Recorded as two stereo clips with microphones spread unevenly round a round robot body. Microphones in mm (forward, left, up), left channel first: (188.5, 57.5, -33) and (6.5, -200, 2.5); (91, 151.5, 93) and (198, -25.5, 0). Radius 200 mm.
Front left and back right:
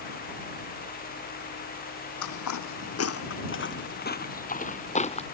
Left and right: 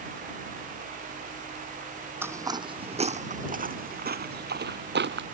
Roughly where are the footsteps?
Ahead left.